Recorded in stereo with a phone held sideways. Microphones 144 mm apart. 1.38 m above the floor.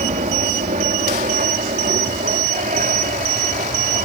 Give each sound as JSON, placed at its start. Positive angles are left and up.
{"t": 0.0, "sound": "an aircraft", "side_deg": -65}